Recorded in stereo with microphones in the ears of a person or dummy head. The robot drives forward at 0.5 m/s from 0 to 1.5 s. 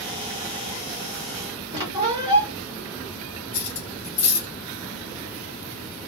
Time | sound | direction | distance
1.7 | a squeak | 30° right (ahead or behind) | 0.8 m
3.5 | cutlery clinking | 40° left (ahead or behind) | 1.7 m